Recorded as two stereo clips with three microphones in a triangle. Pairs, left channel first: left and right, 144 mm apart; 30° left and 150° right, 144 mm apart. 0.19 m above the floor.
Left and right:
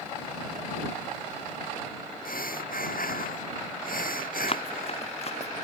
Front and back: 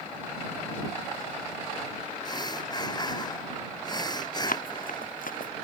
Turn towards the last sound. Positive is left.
turn(degrees=45)